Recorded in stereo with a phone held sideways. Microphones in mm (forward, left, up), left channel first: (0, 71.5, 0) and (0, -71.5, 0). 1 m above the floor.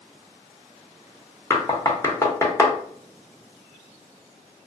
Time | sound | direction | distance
1.5 | knocking | 20° left (ahead or behind) | 0.6 m